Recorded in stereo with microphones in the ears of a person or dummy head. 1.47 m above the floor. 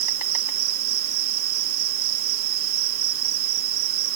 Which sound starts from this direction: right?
An insect, at 0.0 s.